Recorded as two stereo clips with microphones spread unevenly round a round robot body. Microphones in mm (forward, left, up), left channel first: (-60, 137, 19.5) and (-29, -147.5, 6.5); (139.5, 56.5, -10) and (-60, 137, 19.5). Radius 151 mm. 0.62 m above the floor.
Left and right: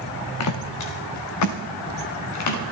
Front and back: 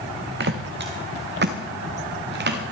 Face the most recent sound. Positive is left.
turn(degrees=120)